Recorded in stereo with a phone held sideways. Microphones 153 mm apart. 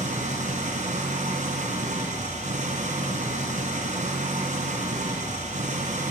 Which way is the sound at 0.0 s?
55° right (ahead or behind).